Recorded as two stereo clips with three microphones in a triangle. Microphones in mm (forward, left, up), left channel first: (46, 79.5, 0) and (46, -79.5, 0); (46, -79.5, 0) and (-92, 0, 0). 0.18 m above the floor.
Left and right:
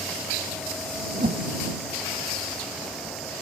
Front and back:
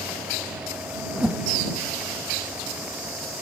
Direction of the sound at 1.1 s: 125° right.